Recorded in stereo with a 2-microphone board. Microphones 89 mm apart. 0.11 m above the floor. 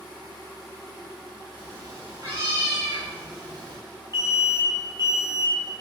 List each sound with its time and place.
1.6 s a cat meowing: 40° right (ahead or behind), 3 m; by 3.8 s 60° right (ahead or behind), 2.5 m
4.1 s an alarm: 40° right (ahead or behind), 2.5 m